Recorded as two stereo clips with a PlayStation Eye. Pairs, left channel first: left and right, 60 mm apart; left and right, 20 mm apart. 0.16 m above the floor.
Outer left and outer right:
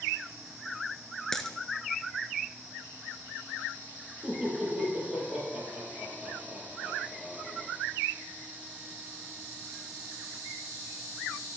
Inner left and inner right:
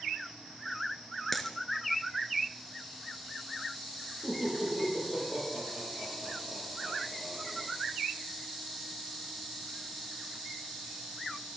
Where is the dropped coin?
10° left (ahead or behind), 1.0 m.